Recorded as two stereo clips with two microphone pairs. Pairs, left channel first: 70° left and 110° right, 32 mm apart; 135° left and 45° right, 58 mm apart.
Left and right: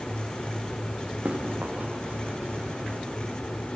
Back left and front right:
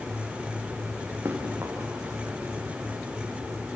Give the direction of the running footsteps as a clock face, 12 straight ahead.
3 o'clock.